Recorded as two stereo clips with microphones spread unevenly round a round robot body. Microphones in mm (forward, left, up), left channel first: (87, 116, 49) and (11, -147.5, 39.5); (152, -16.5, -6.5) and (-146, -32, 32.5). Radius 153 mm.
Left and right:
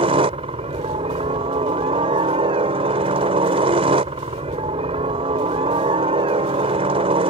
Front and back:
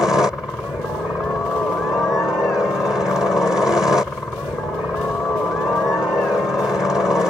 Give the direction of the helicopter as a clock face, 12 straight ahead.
3 o'clock.